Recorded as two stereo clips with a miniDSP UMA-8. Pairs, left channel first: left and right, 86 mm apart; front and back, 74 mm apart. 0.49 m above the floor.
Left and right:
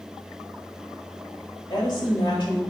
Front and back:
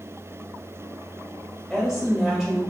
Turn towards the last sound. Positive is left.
turn(degrees=90)